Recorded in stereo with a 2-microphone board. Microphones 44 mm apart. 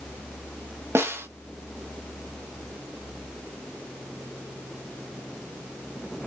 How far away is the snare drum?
About 0.6 m.